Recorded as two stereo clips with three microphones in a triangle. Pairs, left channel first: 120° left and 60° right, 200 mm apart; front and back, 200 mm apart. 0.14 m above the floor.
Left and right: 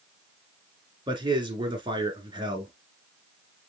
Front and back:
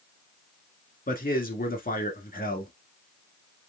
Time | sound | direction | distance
1.1 | a man speaking | 5° right | 1.5 m